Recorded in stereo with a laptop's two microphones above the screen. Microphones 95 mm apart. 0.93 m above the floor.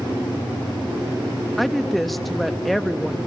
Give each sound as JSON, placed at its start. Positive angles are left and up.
{"t": 1.6, "sound": "a woman speaking", "side_deg": 0, "distance_m": 1.2}